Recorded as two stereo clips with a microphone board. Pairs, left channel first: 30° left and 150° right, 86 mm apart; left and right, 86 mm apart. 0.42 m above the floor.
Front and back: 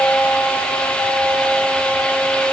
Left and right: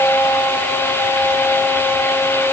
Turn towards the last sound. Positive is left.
No sound to turn to.